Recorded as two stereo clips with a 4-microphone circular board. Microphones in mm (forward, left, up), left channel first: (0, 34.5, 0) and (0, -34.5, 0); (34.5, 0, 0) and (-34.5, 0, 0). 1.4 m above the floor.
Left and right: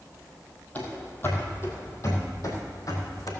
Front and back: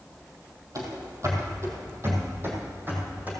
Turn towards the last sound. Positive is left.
turn(degrees=120)